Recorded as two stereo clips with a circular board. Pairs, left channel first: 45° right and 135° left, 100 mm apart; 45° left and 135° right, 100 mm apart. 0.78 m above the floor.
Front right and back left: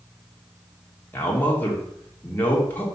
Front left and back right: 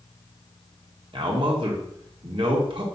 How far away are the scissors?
I don't hear scissors.